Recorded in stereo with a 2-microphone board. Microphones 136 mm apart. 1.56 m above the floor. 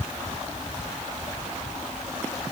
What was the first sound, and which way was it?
Only background noise.